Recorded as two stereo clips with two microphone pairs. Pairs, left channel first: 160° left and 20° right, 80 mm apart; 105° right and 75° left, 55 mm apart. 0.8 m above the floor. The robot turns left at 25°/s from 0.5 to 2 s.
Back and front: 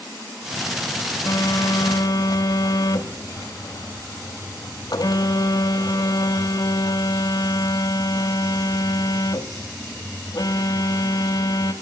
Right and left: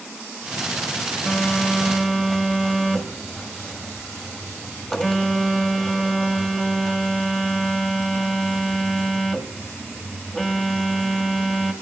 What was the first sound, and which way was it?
A phone buzzing, 175° right.